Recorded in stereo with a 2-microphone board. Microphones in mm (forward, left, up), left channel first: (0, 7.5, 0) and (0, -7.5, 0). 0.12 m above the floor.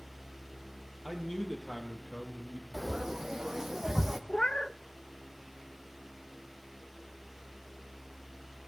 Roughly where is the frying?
Right.